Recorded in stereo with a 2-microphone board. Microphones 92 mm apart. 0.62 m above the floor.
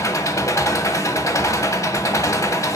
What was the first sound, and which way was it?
An engine running, 35° left (ahead or behind).